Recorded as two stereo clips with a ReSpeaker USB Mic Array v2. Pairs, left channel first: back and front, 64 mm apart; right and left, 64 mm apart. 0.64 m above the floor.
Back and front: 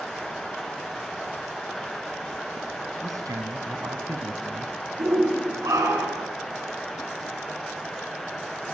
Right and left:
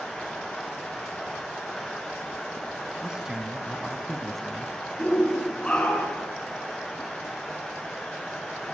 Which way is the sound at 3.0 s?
10° left.